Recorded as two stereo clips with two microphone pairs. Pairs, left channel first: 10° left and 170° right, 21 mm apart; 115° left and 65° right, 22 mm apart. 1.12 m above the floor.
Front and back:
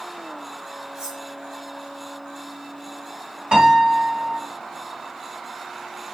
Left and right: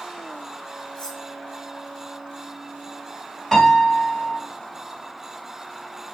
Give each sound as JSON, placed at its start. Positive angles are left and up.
{"t": 0.9, "sound": "cutlery clinking", "azimuth_deg": 145, "distance_m": 2.5}
{"t": 3.5, "sound": "a piano", "azimuth_deg": -175, "distance_m": 2.0}